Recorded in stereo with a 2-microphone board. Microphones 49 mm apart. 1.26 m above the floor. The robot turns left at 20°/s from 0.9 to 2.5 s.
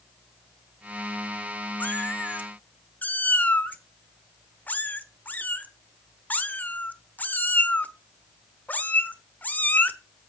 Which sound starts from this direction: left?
A cat meowing, at 1.8 s.